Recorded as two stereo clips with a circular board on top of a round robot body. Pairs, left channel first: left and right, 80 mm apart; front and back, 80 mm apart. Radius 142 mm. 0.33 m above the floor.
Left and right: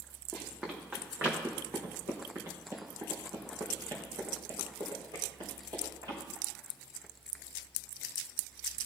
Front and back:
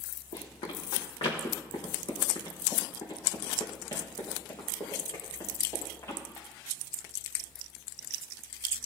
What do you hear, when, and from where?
0.3 s running footsteps: 10° right, 2.5 m; by 6.2 s 60° right, 5 m